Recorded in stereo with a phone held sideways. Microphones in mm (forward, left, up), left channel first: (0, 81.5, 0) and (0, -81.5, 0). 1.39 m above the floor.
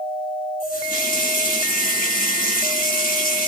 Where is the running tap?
70° left (ahead or behind), 5 m.